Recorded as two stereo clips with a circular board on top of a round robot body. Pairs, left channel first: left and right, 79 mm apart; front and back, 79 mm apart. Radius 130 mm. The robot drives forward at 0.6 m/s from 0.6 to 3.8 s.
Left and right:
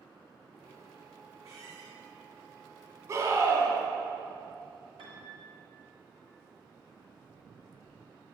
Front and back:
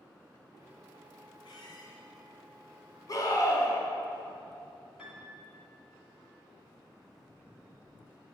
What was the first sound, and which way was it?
A squeak, 35° right.